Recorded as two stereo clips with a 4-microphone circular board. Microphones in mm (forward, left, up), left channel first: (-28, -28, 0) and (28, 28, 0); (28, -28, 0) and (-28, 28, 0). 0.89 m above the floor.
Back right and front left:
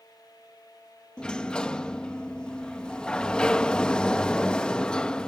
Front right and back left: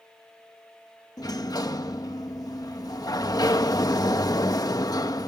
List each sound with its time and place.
1.2 s a sliding door: 60° right